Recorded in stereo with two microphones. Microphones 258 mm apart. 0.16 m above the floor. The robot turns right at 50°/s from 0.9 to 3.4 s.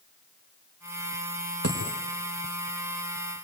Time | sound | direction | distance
1.6 | a dropped coin | 65° right (ahead or behind) | 4 m